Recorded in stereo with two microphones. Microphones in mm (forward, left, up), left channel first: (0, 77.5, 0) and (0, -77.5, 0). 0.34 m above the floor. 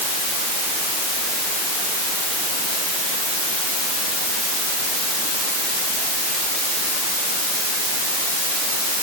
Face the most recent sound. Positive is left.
No sound to turn to.